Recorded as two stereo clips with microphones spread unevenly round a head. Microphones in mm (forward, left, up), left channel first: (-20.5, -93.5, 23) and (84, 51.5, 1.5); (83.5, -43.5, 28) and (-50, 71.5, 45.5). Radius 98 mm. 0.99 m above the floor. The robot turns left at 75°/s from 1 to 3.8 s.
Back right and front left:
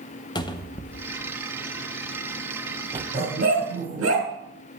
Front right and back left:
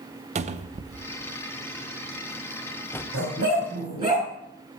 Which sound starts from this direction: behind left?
A dog barking, at 3.1 s.